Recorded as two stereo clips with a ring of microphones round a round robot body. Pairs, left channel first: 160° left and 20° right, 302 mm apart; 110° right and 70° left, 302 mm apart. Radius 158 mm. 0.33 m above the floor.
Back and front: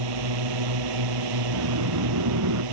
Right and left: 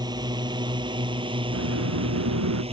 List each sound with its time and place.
0.0 s a drone: 10° right; by 2.7 s 5° right
1.5 s a sliding door: 20° left